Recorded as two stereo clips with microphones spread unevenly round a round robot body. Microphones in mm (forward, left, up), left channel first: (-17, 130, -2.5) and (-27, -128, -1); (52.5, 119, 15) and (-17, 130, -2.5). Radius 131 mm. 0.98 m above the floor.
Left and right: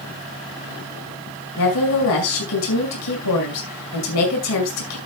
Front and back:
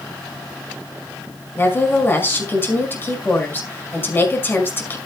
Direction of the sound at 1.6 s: 55° left.